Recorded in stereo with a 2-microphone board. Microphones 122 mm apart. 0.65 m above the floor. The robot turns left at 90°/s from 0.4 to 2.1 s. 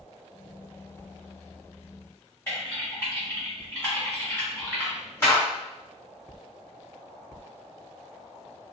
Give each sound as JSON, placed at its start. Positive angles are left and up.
{"t": 2.5, "sound": "typing on a keyboard", "side_deg": 20, "distance_m": 1.4}